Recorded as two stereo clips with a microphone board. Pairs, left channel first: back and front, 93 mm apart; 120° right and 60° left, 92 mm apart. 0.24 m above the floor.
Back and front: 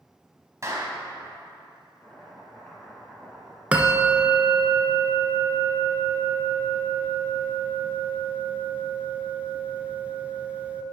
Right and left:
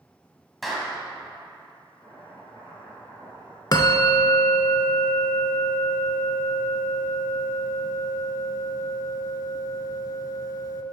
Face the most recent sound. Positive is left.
turn(degrees=-75)